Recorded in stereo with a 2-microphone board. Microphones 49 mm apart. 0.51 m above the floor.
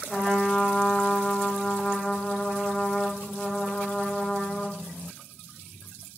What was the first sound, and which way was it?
A trumpet, 15° left (ahead or behind).